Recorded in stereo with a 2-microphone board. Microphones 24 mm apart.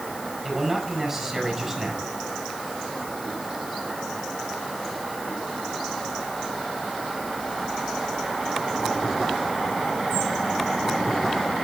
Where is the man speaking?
15° right (ahead or behind), 6.5 m.